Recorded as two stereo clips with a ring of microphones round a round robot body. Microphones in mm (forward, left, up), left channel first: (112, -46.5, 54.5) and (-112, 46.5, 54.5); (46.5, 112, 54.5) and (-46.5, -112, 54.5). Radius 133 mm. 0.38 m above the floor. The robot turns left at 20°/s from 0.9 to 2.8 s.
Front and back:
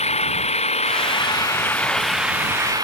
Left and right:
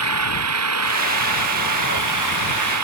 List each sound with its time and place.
0.0 s an engine running: 90° right; by 2.8 s 125° right